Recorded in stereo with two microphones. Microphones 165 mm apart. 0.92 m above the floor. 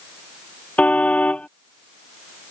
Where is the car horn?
5° left (ahead or behind).